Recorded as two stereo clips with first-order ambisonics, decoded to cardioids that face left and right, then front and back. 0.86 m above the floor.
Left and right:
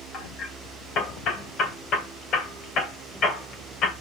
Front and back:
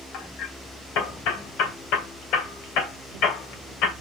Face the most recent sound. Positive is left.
turn(degrees=35)